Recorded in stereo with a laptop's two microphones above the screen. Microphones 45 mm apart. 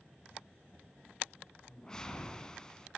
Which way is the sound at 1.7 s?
15° left (ahead or behind).